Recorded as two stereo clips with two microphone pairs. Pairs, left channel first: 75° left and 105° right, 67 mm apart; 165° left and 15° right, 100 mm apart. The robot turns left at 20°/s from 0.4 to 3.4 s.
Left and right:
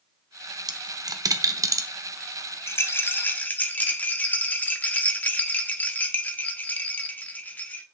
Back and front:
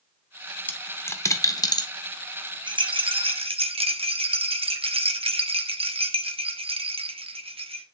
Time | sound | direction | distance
0.7 | a dropped coin | 120° right | 0.7 m
2.7 | a rattle | 25° left | 0.7 m